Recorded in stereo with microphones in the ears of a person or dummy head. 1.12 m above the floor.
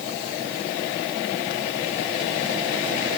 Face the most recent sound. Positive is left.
No sound to turn to.